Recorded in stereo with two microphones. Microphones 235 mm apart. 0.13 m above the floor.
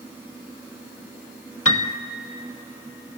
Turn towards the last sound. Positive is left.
turn(degrees=75)  # may be behind; listen again after turning